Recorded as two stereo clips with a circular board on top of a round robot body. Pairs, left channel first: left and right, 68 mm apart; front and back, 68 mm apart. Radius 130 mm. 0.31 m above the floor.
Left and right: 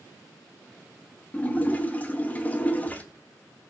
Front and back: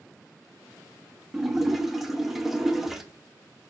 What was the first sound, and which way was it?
A splash, 95° left.